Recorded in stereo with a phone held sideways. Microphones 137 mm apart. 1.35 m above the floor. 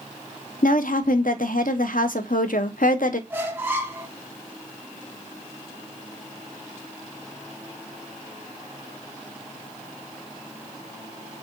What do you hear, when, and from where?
0.6 s a woman speaking: 80° left, 0.5 m
3.3 s a squeak: 15° right (ahead or behind), 0.7 m